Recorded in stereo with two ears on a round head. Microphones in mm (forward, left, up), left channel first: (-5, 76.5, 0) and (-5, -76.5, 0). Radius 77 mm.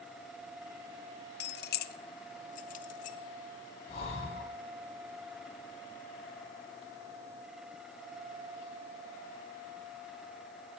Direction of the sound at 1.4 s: 65° left (ahead or behind).